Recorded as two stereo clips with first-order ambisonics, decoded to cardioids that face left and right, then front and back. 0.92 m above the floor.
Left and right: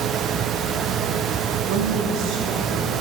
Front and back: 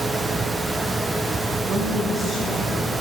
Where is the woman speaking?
110° right, 1.0 m; by 2.9 s 70° right, 2 m.